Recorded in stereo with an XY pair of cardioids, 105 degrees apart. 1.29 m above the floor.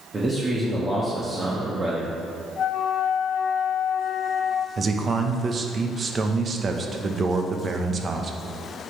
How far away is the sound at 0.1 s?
About 1.7 m.